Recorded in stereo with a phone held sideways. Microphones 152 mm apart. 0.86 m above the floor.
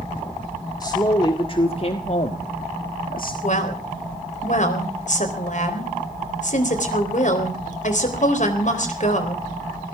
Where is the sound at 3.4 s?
55° left (ahead or behind), 3.5 m.